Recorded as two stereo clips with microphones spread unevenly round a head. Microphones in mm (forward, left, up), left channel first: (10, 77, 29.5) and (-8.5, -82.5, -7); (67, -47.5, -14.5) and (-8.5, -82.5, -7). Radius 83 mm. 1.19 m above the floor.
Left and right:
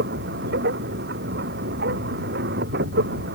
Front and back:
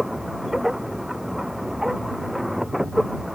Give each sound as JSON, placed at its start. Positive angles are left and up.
{"t": 0.0, "sound": "a machine running", "azimuth_deg": -70}